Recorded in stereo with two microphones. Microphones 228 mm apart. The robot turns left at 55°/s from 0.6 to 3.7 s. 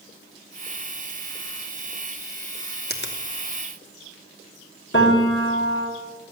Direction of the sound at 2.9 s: 45° left (ahead or behind).